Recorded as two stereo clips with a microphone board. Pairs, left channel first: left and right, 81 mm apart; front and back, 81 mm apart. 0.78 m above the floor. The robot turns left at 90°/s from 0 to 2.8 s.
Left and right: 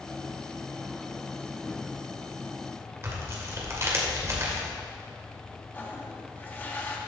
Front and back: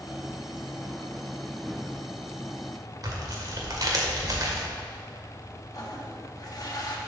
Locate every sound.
3.0 s tearing paper: 140° right, 1.7 m
5.7 s a toilet flushing: 30° left, 1.2 m